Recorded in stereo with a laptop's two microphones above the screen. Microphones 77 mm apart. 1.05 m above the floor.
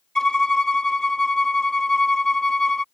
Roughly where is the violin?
Centre.